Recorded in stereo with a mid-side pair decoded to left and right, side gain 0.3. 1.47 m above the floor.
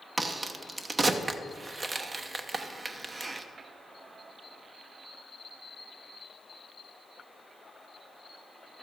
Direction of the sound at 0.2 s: 45° right.